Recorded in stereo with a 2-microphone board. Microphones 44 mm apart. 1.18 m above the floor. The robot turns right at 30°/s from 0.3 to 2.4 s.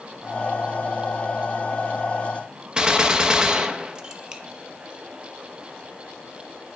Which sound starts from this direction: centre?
A gunshot, at 2.8 s.